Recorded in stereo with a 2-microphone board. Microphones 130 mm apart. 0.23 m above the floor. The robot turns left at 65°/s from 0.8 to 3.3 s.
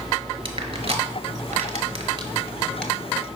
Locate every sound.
0.5 s crushing: 55° right (ahead or behind), 0.9 m; by 2.9 s 10° left (ahead or behind), 0.9 m